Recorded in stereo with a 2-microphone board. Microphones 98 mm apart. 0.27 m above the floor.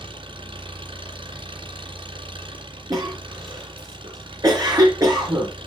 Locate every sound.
0.0 s an engine running: 65° right (ahead or behind), 2.5 m
2.9 s a cough: 40° right (ahead or behind), 3.5 m